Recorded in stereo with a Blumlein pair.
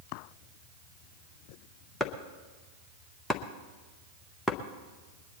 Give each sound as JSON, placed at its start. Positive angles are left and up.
{"t": 2.0, "sound": "chopping", "azimuth_deg": 10, "distance_m": 1.1}